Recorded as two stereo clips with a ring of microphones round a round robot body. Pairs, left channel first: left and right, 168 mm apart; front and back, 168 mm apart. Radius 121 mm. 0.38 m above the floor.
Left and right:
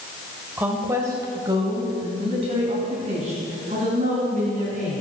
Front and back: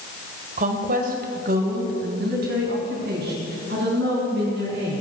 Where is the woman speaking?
170° right, 1.7 m; by 5.0 s 145° right, 5 m.